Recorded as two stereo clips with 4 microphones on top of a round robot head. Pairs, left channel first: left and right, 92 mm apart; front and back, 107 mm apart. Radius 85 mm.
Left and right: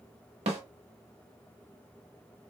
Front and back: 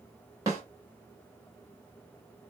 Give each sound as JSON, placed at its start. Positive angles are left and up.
{"t": 0.5, "sound": "a snare drum", "azimuth_deg": -110, "distance_m": 0.9}